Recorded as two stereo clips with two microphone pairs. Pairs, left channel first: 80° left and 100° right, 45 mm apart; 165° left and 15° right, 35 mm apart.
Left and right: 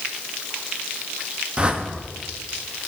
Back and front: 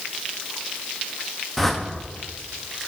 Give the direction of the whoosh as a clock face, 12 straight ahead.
4 o'clock.